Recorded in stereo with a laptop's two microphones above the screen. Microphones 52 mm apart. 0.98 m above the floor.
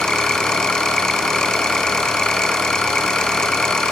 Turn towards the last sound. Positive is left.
turn(degrees=15)  # may be behind; listen again after turning